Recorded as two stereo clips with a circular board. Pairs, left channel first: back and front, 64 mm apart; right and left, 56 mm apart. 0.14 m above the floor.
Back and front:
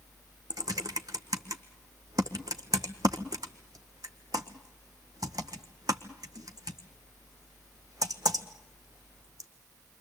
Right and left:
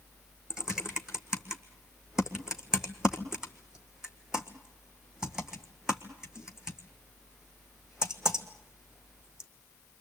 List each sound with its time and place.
0.5 s typing on a keyboard: 10° left, 1.6 m